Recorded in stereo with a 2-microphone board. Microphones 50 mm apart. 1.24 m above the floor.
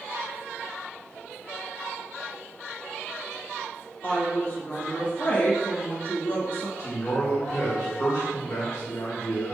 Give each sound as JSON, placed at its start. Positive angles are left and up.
{"t": 4.0, "sound": "a woman speaking", "side_deg": 35, "distance_m": 1.3}
{"t": 6.8, "sound": "a man speaking", "side_deg": 65, "distance_m": 1.4}